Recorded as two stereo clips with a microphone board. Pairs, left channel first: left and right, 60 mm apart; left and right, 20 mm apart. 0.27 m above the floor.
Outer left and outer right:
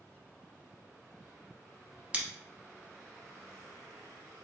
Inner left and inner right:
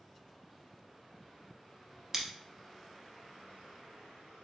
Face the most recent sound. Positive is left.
turn(degrees=-20)  # may be behind; listen again after turning